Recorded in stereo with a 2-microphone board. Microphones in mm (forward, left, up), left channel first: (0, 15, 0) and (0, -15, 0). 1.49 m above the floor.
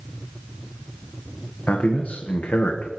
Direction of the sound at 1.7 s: 70° left (ahead or behind).